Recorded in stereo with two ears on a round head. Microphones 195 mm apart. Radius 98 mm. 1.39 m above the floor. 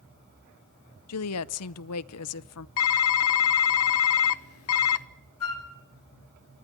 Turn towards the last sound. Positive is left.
turn(degrees=70)  # may be behind; listen again after turning